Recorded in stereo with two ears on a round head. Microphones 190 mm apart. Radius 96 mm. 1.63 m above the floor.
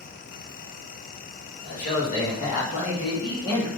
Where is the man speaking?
45° left (ahead or behind), 2.5 m; by 3.7 s 15° left (ahead or behind), 1.7 m.